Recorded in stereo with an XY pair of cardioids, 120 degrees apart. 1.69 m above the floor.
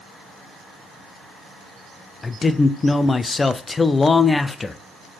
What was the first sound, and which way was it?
A man speaking, 20° left.